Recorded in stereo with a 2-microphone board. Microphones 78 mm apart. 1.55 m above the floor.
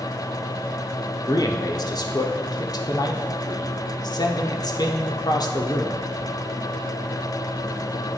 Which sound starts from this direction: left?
A man speaking, at 1.3 s.